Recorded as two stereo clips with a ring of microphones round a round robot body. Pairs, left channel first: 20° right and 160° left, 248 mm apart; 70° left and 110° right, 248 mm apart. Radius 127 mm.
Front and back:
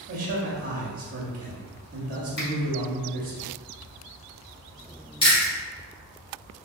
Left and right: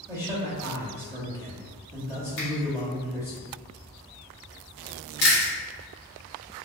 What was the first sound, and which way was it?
A man speaking, 175° left.